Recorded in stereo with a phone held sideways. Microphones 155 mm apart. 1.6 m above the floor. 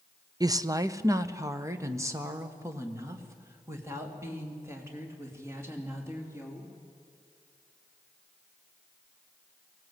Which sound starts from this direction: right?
A woman speaking, at 0.4 s.